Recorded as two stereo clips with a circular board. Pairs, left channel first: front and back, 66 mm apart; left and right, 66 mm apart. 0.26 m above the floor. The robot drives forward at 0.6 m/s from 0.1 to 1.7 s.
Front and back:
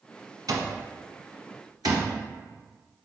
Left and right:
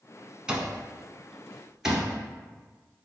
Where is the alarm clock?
165° right, 0.9 m; by 2.1 s 170° right, 1.6 m.